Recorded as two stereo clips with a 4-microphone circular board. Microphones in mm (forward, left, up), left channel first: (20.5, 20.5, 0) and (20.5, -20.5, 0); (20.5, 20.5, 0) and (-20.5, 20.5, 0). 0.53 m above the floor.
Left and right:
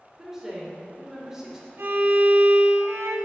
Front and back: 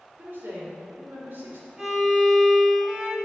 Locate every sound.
0.2 s a woman speaking: 165° right, 1.9 m
1.8 s a violin: 105° right, 1.1 m